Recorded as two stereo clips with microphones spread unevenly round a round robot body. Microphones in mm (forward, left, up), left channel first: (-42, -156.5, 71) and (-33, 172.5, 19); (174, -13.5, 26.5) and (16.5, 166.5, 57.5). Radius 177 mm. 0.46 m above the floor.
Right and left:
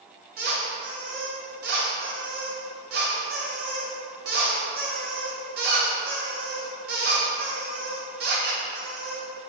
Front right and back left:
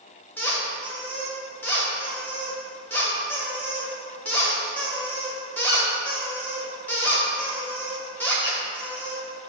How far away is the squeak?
About 1.8 m.